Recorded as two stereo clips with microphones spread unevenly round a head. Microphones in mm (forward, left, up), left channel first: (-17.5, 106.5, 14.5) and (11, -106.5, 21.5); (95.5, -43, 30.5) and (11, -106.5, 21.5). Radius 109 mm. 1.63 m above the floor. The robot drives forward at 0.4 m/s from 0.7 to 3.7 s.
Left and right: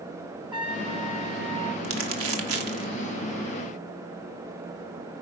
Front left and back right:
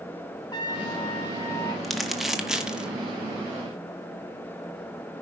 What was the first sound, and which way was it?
A trumpet, 15° right.